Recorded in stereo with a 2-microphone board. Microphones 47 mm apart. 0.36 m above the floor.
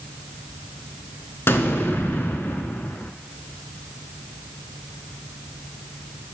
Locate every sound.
1.5 s an explosion: 60° left (ahead or behind), 0.5 m